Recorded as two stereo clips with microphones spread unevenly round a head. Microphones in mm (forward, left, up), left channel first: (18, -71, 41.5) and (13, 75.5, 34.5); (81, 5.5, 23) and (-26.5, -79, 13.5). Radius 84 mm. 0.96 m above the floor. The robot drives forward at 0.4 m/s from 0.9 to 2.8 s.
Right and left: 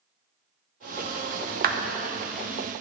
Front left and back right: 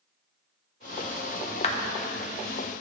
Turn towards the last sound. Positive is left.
turn(degrees=115)